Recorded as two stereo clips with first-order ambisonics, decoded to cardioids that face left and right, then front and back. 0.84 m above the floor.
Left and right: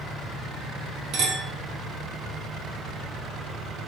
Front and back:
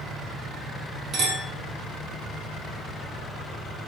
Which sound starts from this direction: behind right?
A clink, at 1.1 s.